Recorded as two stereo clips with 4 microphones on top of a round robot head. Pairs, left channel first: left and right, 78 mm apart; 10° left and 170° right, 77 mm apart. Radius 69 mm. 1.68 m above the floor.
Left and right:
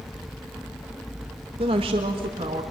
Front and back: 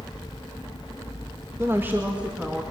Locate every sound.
1.6 s a woman speaking: 105° right, 1.7 m; by 2.6 s 85° right, 2.5 m